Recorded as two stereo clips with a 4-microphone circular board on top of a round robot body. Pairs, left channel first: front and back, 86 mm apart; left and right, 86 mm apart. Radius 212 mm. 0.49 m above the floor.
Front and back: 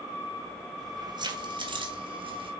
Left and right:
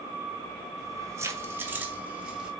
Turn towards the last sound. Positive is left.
turn(degrees=-170)